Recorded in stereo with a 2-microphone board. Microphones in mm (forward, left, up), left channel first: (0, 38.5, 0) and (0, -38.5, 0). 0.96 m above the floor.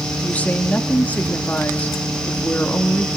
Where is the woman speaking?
20° left (ahead or behind), 2 m.